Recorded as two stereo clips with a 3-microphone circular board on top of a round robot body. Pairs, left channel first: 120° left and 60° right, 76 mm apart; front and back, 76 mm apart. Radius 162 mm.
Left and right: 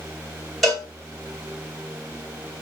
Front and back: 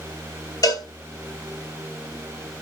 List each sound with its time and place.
0.6 s a cowbell: 30° left, 2.5 m